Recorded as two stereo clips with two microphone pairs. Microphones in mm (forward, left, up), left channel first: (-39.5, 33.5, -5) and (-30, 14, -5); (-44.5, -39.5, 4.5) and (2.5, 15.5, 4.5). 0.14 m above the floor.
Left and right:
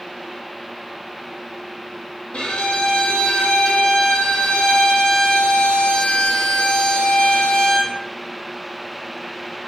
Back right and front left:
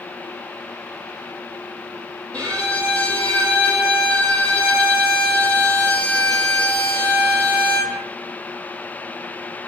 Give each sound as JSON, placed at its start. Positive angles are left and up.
{"t": 2.3, "sound": "a violin", "azimuth_deg": 160, "distance_m": 0.9}